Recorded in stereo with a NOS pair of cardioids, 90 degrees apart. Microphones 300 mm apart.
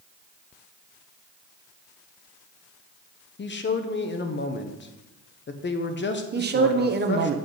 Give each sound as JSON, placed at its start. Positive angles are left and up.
{"t": 3.4, "sound": "a man speaking", "azimuth_deg": 40, "distance_m": 1.1}
{"t": 6.3, "sound": "a man speaking", "azimuth_deg": -35, "distance_m": 1.2}